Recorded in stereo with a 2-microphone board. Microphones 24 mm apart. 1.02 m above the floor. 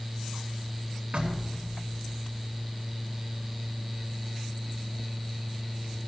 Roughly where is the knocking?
Right.